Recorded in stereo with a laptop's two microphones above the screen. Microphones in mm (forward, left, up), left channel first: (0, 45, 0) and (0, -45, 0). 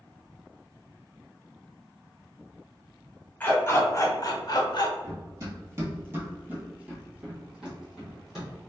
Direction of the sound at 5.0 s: 40° right (ahead or behind).